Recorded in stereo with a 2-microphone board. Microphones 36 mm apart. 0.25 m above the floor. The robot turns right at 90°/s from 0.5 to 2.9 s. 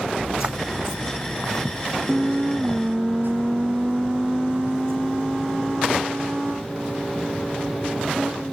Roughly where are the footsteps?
Right.